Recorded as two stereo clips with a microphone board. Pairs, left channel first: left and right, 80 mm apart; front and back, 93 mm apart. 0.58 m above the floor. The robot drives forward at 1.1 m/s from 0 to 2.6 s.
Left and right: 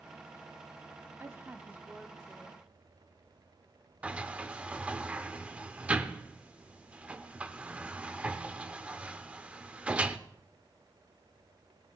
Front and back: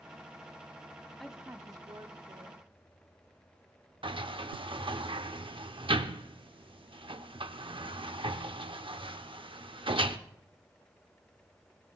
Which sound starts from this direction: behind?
A sliding door, at 4.0 s.